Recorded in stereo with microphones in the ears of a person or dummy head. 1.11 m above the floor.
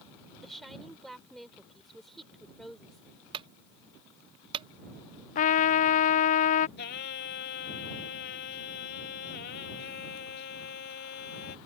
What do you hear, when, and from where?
0.4 s a woman speaking: 5° right (ahead or behind)
3.3 s a clunk: 30° right (ahead or behind)
5.3 s a trumpet: 40° left (ahead or behind)
6.8 s singing: 50° left (ahead or behind)